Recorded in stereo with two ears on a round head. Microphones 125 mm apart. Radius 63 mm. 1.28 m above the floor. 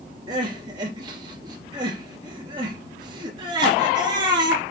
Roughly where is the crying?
Right.